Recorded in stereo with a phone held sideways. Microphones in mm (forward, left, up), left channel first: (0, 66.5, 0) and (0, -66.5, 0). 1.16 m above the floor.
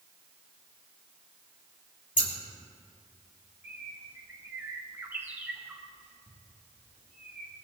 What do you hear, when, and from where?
2.2 s scissors: 80° left, 2.5 m
3.6 s a bird: 15° right (ahead or behind), 1.8 m